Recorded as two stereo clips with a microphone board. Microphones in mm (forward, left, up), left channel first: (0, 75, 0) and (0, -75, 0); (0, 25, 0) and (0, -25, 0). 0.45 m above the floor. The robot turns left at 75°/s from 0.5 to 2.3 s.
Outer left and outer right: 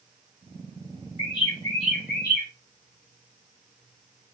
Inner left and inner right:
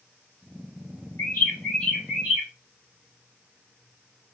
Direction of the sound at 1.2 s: 45° left.